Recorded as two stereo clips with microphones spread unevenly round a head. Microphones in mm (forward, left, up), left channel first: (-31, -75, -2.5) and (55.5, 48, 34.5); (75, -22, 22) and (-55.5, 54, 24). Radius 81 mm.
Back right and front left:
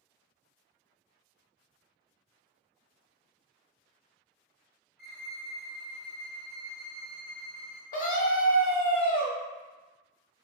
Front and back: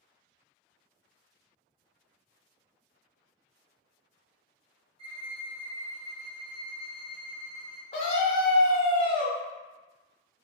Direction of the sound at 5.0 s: 160° right.